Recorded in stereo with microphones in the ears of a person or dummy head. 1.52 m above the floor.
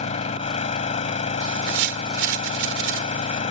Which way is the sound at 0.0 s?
40° left (ahead or behind).